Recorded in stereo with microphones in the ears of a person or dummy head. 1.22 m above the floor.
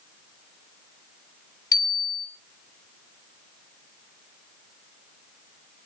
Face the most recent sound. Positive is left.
turn(degrees=20)  # may be behind; listen again after turning